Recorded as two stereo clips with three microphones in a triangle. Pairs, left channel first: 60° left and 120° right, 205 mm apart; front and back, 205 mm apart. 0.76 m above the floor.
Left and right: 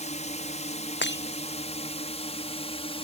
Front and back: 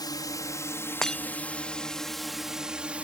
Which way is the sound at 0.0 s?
55° left.